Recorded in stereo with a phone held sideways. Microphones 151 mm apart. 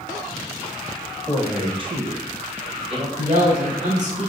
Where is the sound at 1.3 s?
5° right (ahead or behind), 1.1 m; by 3.1 s 35° right (ahead or behind), 1.8 m.